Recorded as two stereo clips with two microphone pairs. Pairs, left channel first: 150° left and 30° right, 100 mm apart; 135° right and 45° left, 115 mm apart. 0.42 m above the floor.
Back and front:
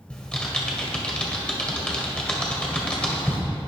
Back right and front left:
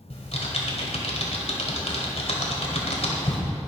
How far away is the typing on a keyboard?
About 1.8 m.